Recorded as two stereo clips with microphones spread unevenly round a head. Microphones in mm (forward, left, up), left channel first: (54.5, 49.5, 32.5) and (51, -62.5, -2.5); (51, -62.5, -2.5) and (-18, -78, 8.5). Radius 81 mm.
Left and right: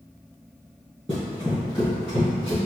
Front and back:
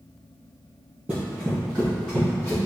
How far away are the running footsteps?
About 2.0 m.